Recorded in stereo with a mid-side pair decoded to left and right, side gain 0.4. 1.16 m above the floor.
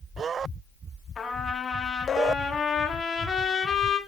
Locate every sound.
1.2 s a trumpet: 45° left, 1.2 m